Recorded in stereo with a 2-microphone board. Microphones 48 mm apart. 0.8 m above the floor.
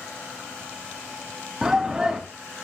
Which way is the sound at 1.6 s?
15° right (ahead or behind).